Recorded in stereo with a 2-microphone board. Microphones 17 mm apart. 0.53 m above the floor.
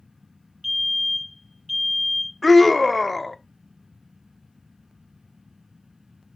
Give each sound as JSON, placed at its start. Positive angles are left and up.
{"t": 0.6, "sound": "a fire alarm", "side_deg": -10, "distance_m": 2.0}
{"t": 2.4, "sound": "a scream", "side_deg": 5, "distance_m": 0.8}